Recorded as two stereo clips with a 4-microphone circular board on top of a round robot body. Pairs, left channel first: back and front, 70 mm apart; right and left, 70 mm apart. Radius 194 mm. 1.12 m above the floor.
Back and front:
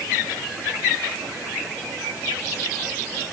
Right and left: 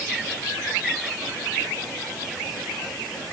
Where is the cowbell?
I don't hear a cowbell.